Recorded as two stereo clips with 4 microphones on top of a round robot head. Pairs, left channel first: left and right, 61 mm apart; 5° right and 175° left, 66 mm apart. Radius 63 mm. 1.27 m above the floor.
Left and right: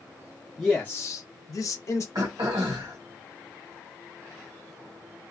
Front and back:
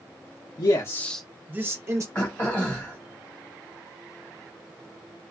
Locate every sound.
0.6 s a man speaking: 15° left, 0.6 m; by 2.0 s 130° left, 1.0 m
2.1 s throat clearing: 75° right, 1.2 m